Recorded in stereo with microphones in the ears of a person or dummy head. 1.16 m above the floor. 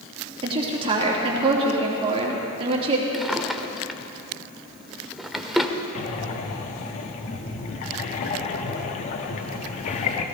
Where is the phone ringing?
I don't hear a phone ringing.